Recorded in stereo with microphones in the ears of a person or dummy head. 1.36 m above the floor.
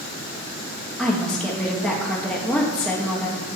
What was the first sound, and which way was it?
A woman speaking, 10° left (ahead or behind).